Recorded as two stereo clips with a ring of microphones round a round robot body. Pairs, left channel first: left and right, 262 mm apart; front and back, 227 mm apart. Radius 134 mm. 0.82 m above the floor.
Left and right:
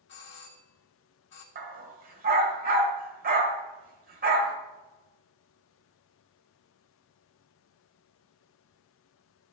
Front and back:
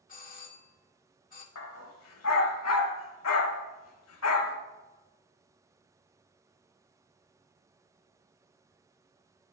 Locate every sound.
0.1 s a doorbell: 50° left, 1.7 m
1.6 s a dog barking: 35° right, 1.1 m